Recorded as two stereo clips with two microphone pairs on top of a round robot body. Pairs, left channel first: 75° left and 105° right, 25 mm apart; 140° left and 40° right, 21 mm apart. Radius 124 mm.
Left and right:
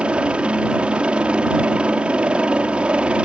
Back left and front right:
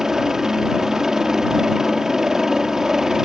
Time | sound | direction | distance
0.0 | a helicopter | 115° right | ?